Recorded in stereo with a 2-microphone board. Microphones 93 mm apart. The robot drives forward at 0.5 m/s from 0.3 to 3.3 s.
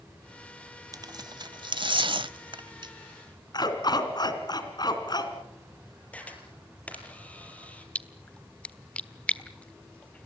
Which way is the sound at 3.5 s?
50° left (ahead or behind).